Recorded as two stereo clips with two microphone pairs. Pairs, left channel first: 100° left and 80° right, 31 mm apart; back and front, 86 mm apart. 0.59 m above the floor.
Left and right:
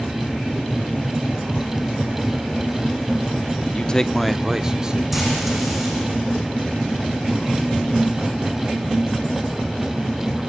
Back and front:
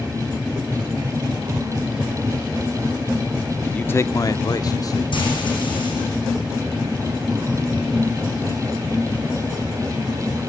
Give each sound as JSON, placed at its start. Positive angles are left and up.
{"t": 3.7, "sound": "a man speaking", "azimuth_deg": 115, "distance_m": 0.9}
{"t": 5.1, "sound": "frying", "azimuth_deg": -165, "distance_m": 9.5}